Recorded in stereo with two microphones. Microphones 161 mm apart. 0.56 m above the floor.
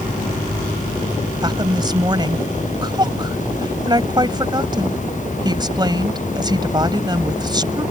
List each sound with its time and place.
1.4 s a woman speaking: 25° right (ahead or behind)